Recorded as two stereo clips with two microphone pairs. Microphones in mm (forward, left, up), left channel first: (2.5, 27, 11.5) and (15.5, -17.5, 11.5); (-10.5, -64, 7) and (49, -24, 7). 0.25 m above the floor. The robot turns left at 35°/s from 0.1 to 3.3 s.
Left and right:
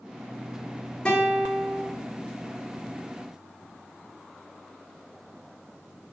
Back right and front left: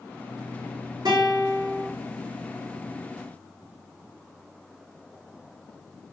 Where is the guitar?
40° left, 4 m; by 1.9 s 10° left, 4 m.